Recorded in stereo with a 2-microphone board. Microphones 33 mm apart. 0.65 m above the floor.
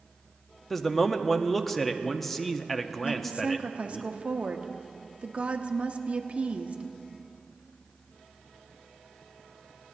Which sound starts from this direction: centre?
A man speaking, at 0.7 s.